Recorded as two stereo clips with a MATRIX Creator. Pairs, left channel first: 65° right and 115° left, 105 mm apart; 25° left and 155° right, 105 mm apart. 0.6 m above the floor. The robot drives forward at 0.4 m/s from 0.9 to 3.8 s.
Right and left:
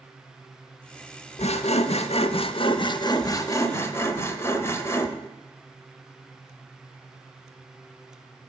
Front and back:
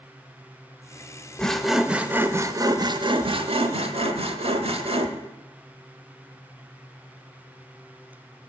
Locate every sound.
1.4 s sawing: 60° right, 0.7 m; by 5.1 s 135° right, 0.9 m